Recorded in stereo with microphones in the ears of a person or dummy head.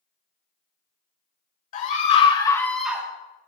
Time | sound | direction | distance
1.7 | a scream | 50° left (ahead or behind) | 1.5 m